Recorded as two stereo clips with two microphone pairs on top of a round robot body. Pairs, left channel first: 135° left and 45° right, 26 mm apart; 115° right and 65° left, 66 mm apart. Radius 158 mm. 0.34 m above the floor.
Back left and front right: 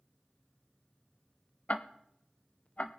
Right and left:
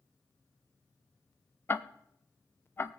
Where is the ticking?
175° right, 0.5 m.